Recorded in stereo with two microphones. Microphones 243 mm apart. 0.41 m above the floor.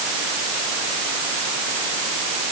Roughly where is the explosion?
No explosion in this recording.